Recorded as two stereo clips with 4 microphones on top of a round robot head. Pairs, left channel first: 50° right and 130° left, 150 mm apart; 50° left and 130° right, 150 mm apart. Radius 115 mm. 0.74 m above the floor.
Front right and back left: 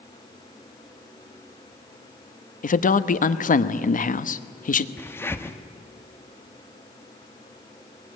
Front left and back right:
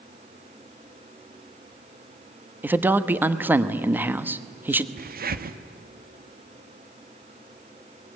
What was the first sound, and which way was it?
A man speaking, 55° right.